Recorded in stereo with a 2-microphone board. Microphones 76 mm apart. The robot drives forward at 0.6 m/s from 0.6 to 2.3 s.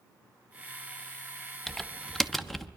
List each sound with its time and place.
1.7 s typing on a keyboard: 5° left (ahead or behind), 0.7 m